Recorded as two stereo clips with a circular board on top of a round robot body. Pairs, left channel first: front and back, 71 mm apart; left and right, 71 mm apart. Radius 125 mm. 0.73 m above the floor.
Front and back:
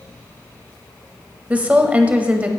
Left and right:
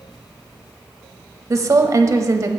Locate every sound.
1.5 s a woman speaking: 120° right, 1.0 m